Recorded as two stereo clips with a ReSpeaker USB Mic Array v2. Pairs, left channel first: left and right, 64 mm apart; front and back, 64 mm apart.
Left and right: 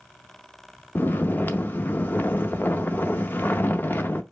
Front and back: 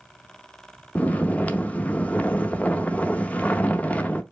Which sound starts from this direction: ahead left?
Snoring, at 0.9 s.